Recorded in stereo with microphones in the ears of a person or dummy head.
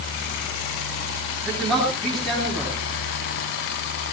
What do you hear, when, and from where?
1.4 s a man speaking: centre (ahead or behind), 7 m